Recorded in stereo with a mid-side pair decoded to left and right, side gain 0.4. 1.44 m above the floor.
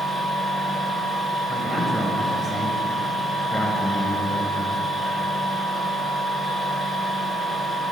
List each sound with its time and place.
0.0 s a machine running: 30° left, 2 m
1.5 s a man speaking: 25° left, 1.4 m